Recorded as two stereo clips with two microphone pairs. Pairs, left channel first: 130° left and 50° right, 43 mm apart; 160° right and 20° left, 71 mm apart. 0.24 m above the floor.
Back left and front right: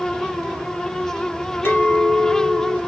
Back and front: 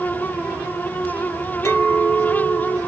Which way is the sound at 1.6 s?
160° left.